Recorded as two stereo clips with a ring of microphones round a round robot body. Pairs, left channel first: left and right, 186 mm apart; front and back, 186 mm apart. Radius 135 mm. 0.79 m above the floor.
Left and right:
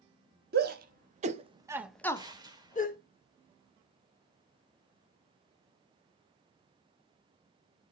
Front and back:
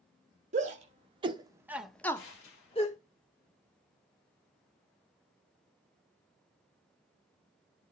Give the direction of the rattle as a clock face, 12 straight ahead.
No rattle in this recording.